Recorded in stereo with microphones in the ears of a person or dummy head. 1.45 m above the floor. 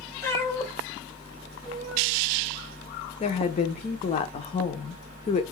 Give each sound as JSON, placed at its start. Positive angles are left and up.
{"t": 0.2, "sound": "a cat meowing", "side_deg": 10, "distance_m": 1.3}
{"t": 3.2, "sound": "a woman speaking", "side_deg": 35, "distance_m": 0.6}